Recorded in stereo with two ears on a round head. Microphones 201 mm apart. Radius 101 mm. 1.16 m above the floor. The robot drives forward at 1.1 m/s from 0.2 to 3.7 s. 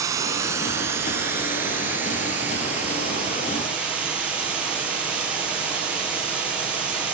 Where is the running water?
15° right (ahead or behind), 2.5 m; by 7.2 s 5° right (ahead or behind), 6.5 m.